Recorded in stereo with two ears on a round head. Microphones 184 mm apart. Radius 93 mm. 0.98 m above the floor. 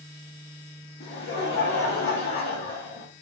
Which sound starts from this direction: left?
Laughter, at 1.0 s.